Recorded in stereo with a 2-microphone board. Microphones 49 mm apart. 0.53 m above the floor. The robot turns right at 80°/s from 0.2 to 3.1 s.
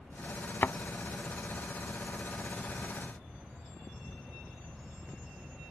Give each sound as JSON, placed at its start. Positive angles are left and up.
{"t": 0.6, "sound": "a thud", "side_deg": 50}